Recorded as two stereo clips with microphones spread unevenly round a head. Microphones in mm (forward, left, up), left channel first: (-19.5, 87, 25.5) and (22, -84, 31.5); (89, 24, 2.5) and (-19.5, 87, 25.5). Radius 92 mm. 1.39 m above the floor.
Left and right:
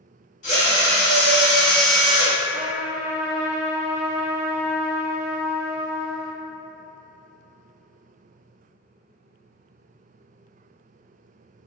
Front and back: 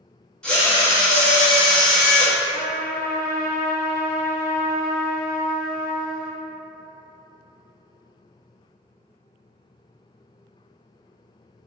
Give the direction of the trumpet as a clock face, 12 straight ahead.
1 o'clock.